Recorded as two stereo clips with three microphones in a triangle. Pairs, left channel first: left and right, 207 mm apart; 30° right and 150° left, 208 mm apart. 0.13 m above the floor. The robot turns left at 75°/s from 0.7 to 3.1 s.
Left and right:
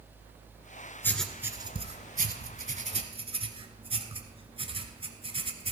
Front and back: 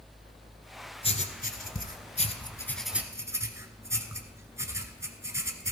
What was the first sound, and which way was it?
Writing, 15° left.